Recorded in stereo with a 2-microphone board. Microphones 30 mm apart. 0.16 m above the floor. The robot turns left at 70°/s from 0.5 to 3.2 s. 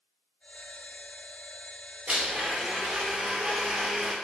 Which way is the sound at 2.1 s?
65° right.